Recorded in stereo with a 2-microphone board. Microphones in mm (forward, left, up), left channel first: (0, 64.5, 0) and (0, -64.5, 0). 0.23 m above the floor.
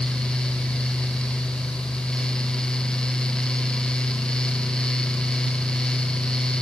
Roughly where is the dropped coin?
I don't hear a dropped coin.